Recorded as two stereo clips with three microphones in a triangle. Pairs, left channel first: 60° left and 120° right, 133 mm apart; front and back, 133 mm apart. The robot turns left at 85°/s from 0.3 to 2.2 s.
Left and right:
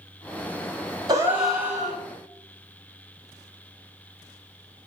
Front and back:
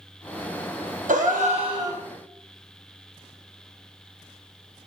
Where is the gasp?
175° right, 0.9 m; by 2.0 s 105° left, 0.9 m.